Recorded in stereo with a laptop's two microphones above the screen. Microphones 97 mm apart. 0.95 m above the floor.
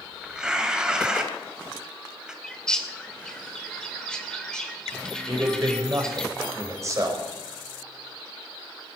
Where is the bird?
5° left (ahead or behind), 1.9 m.